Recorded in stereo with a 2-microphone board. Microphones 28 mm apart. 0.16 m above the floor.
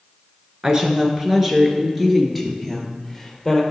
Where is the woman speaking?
30° right (ahead or behind), 1.7 m; by 3.6 s centre (ahead or behind), 2.5 m.